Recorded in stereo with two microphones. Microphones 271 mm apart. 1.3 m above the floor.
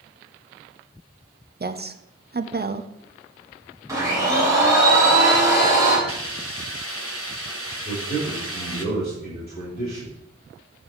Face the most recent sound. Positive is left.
turn(degrees=35)  # may be behind; listen again after turning